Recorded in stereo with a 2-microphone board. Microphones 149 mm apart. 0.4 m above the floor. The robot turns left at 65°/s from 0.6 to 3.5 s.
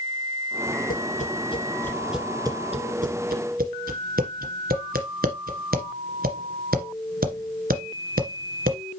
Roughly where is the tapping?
Left.